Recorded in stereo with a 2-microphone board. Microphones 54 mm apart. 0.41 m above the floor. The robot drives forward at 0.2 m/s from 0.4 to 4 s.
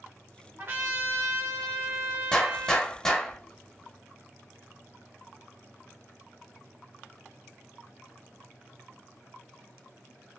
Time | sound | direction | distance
0.6 | a trumpet | 45° right (ahead or behind) | 1.2 m
2.3 | a gunshot | 15° left (ahead or behind) | 0.8 m